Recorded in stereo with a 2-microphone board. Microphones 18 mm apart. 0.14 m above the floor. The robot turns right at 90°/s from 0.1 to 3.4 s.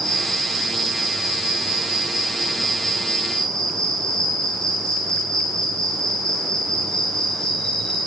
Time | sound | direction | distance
0.0 | an insect | 150° left | 5 m